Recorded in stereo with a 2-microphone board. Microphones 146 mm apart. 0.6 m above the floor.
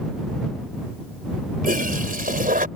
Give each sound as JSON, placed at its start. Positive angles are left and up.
{"t": 1.6, "sound": "a toilet flushing", "side_deg": -70}